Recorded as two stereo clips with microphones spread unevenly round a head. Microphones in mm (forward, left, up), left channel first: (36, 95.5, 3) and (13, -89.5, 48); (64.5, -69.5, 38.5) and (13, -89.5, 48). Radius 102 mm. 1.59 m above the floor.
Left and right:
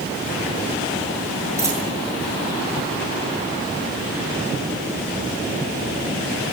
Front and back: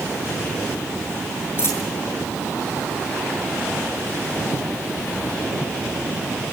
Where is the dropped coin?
25° right, 8.5 m.